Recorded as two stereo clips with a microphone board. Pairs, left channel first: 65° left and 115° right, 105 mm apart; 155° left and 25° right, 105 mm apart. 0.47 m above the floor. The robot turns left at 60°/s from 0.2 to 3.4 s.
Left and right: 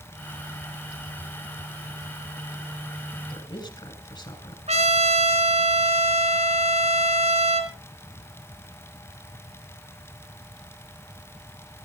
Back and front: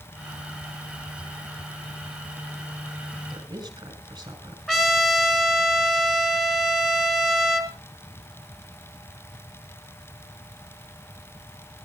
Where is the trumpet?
115° right, 2.5 m.